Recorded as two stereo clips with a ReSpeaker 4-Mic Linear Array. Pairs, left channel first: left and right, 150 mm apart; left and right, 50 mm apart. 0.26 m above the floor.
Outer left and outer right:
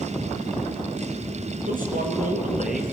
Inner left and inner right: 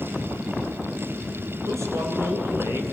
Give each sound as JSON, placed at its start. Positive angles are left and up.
{"t": 1.7, "sound": "a man speaking", "side_deg": -65, "distance_m": 4.5}